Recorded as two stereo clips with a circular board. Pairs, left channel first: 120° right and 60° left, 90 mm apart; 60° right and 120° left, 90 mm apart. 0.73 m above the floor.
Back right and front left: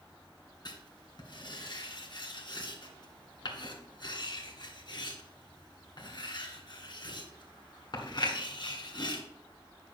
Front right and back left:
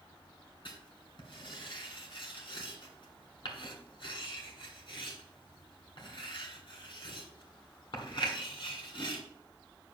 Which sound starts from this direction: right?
Writing, at 0.7 s.